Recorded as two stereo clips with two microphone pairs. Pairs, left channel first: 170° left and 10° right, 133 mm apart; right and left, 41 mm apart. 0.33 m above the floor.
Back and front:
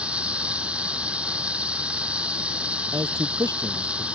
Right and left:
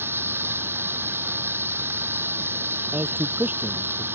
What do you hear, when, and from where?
0.0 s running water: 75° left
2.9 s a man speaking: 55° left